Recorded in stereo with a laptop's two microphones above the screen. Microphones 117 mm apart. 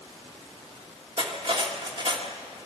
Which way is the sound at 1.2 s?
45° right (ahead or behind).